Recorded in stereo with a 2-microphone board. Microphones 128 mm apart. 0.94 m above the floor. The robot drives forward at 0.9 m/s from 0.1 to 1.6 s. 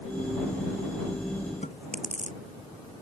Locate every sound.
1.6 s chewing: 80° left